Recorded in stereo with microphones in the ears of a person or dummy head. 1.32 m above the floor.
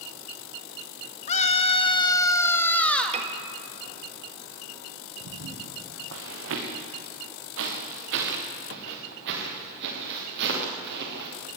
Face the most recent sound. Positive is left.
turn(degrees=-60)  # may be behind; listen again after turning